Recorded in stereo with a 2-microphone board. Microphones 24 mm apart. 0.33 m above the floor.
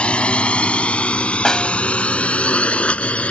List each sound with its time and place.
0.0 s a drone: 60° left (ahead or behind); by 3.3 s 70° left (ahead or behind)
1.4 s a snare drum: 30° left (ahead or behind)